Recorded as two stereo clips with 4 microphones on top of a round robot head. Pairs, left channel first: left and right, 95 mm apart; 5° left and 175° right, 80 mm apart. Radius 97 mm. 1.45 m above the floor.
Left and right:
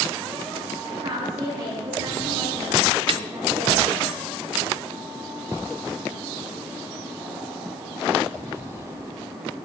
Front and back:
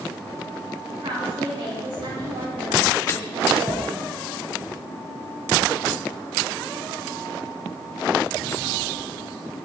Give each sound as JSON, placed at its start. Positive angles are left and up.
{"t": 0.9, "sound": "a woman speaking", "azimuth_deg": -140, "distance_m": 7.5}
{"t": 3.1, "sound": "a snare drum", "azimuth_deg": -60, "distance_m": 0.5}